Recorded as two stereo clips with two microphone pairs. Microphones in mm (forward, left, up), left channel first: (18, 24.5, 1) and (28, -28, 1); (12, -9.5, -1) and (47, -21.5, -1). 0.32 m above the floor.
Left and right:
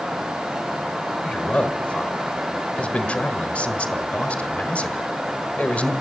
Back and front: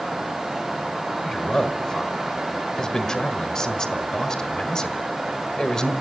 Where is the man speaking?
115° left, 1.4 m.